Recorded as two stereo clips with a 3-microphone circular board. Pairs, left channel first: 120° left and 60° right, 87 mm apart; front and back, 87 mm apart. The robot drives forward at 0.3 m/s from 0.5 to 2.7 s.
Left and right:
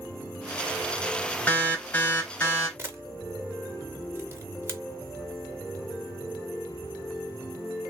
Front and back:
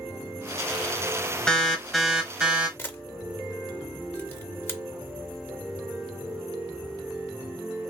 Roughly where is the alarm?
Left.